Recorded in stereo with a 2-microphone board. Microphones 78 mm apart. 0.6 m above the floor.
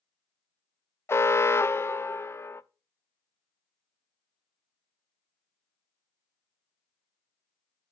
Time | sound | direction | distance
1.1 | an alarm | 35° left (ahead or behind) | 0.5 m